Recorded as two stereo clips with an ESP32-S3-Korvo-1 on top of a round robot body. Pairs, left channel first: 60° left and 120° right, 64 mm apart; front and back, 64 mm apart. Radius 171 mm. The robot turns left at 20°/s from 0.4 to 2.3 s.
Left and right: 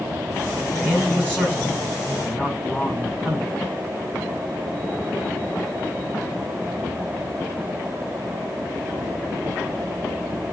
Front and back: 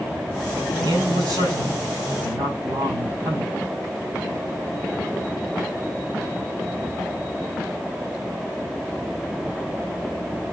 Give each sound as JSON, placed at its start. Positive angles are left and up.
{"t": 0.8, "sound": "a man speaking", "azimuth_deg": 180, "distance_m": 6.0}